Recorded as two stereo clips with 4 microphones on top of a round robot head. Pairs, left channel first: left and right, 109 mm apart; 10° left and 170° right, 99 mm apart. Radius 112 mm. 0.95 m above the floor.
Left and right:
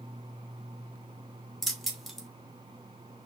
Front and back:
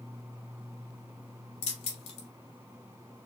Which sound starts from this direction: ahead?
Keys jangling, at 1.6 s.